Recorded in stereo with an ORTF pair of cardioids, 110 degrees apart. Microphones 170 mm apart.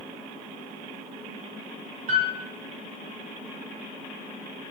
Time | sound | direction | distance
2.1 | a piano | 50° right | 4.5 m